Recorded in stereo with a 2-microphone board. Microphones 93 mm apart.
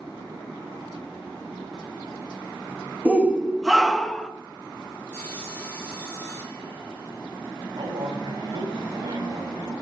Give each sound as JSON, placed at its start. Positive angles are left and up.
{"t": 3.0, "sound": "a shout", "side_deg": -15, "distance_m": 1.2}
{"t": 5.1, "sound": "sawing", "side_deg": 15, "distance_m": 5.0}
{"t": 7.7, "sound": "a man speaking", "side_deg": -75, "distance_m": 5.5}